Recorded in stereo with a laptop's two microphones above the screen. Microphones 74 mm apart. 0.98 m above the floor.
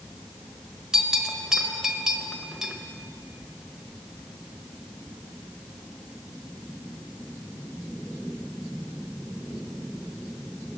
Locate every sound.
0.9 s a bell: 10° right (ahead or behind), 0.9 m